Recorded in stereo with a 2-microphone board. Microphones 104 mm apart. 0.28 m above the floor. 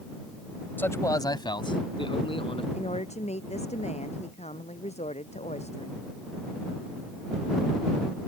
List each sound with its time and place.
0.8 s a man speaking: 20° left (ahead or behind); by 2.6 s 55° left (ahead or behind)
2.7 s a woman speaking: 85° left